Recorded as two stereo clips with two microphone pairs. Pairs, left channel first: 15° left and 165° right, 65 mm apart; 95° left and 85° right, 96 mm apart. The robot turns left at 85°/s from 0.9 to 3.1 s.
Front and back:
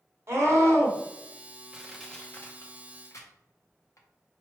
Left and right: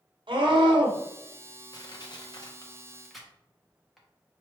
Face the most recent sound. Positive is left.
turn(degrees=10)